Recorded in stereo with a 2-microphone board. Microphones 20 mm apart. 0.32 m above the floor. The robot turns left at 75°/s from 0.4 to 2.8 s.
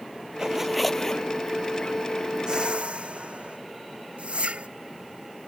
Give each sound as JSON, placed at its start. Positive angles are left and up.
{"t": 0.4, "sound": "a zipper", "azimuth_deg": -150}
{"t": 2.5, "sound": "a whoosh", "side_deg": -35}